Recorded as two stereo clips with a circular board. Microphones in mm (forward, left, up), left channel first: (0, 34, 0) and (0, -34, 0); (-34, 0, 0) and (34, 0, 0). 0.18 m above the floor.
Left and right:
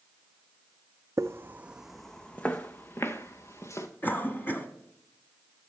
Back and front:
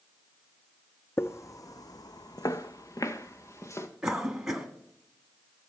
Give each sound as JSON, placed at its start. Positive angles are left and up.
{"t": 1.2, "sound": "footsteps", "azimuth_deg": -130, "distance_m": 0.6}
{"t": 4.0, "sound": "a cough", "azimuth_deg": 75, "distance_m": 1.2}